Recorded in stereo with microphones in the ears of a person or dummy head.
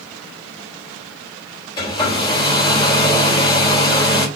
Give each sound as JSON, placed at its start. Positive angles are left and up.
{"t": 1.8, "sound": "a hair dryer", "side_deg": 25, "distance_m": 4.0}